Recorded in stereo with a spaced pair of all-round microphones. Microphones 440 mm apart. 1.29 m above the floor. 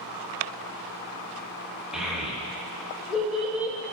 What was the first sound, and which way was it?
A child speaking, centre (ahead or behind).